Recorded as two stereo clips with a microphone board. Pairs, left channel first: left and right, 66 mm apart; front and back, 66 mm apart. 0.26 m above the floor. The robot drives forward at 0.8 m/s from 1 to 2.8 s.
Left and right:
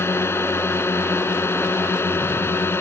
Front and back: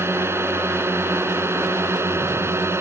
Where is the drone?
135° left.